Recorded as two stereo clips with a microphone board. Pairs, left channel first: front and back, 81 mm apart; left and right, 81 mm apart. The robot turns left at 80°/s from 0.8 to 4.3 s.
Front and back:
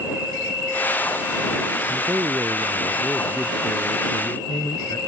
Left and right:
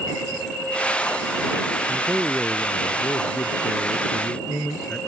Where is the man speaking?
150° right; by 5.0 s 20° left.